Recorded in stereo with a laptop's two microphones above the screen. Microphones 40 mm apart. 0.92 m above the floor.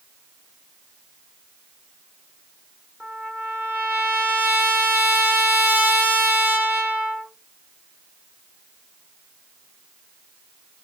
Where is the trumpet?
35° right (ahead or behind), 0.9 m.